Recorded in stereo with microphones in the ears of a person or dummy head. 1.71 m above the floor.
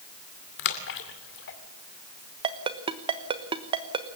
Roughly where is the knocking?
I don't hear knocking.